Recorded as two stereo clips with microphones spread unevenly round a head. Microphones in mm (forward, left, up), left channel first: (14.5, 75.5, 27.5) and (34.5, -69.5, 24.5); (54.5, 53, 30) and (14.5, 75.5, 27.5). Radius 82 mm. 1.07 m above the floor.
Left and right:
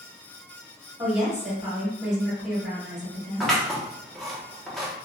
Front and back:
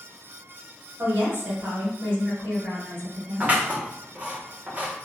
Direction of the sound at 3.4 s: 175° right.